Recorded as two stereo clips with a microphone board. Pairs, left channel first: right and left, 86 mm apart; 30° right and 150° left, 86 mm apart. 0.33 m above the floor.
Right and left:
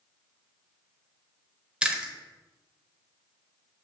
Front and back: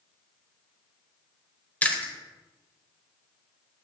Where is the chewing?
25° left, 1.1 m.